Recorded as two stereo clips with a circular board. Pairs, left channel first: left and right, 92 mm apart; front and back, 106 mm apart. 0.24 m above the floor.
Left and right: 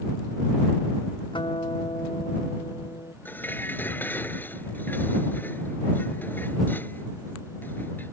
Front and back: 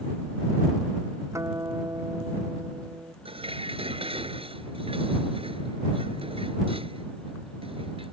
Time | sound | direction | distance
1.3 | a guitar | 115° left | ?
3.2 | dishes clattering | 155° left | ?